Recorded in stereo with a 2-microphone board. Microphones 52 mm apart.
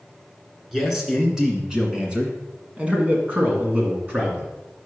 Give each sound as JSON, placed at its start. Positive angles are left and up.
{"t": 0.7, "sound": "a man speaking", "side_deg": -5, "distance_m": 2.0}